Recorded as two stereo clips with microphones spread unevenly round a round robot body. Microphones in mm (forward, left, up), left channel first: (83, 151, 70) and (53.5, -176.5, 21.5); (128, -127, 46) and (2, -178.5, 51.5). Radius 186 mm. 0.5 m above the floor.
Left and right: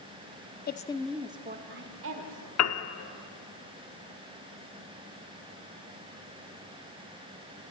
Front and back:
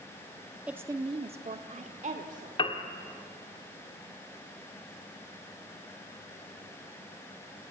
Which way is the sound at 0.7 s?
125° left.